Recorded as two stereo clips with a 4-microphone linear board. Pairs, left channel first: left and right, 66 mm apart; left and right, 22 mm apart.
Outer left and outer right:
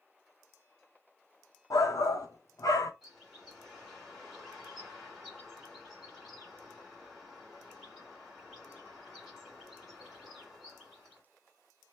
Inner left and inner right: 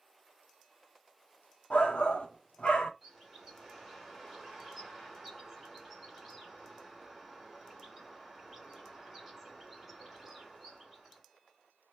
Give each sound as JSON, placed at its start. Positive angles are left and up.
{"t": 1.7, "sound": "a shout", "side_deg": 60, "distance_m": 0.8}
{"t": 3.0, "sound": "a bird", "side_deg": 0, "distance_m": 1.8}